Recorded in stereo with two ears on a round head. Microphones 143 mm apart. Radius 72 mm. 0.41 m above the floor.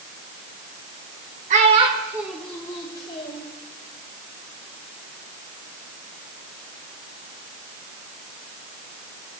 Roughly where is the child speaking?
Right.